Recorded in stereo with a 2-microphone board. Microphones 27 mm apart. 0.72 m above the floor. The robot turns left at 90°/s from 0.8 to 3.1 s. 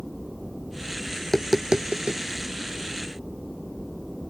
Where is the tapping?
20° left (ahead or behind); by 2.2 s 70° right (ahead or behind).